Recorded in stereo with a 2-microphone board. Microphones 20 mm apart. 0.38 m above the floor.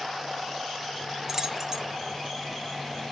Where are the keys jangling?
30° right (ahead or behind), 0.8 m.